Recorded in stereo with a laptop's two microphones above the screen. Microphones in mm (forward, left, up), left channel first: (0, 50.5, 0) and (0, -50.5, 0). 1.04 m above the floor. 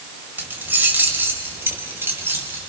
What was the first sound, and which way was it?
Keys jangling, 20° right (ahead or behind).